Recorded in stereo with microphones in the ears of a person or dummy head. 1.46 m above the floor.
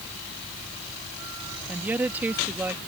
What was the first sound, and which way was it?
A woman speaking, 10° right (ahead or behind).